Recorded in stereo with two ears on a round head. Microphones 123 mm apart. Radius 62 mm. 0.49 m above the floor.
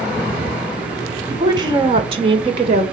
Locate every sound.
1.3 s a woman speaking: 25° right (ahead or behind), 1.8 m; by 2.8 s 50° right (ahead or behind), 2 m